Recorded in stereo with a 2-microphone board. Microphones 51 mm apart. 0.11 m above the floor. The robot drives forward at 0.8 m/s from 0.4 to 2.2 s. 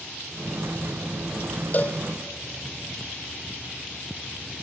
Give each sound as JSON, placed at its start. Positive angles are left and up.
{"t": 1.7, "sound": "a cowbell", "side_deg": 40, "distance_m": 0.6}